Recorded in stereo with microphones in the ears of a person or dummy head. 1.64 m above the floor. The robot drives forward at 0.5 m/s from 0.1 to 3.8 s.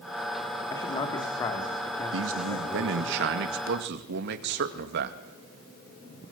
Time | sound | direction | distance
0.7 | a man speaking | 25° left (ahead or behind) | 3 m
2.1 | a man speaking | 80° right | 2 m